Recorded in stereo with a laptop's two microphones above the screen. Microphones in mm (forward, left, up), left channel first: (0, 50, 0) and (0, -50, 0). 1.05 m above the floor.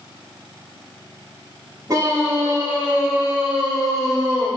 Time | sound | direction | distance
1.9 | a scream | 35° right (ahead or behind) | 3 m